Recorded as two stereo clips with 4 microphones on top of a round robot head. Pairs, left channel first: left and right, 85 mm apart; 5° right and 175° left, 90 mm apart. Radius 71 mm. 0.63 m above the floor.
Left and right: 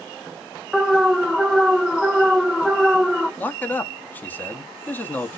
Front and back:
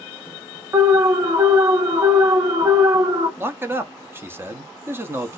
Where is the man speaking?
140° left, 1.0 m.